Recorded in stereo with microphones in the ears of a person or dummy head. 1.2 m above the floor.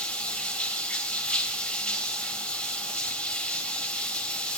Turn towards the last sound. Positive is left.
turn(degrees=10)  # may be behind; listen again after turning